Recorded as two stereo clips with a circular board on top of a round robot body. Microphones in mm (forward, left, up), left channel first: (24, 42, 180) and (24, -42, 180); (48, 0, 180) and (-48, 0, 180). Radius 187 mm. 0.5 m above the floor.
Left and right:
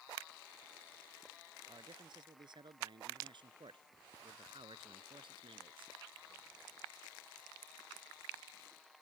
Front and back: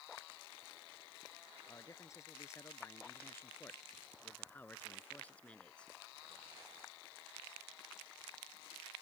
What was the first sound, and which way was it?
A man speaking, 60° right.